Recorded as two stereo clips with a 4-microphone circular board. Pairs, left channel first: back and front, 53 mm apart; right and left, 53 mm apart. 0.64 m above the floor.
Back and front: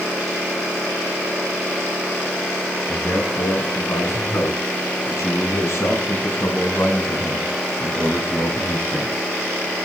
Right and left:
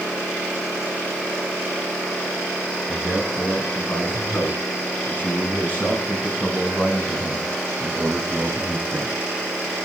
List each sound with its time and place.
2.9 s a man speaking: 140° right, 8 m; by 9.2 s 175° right, 4.5 m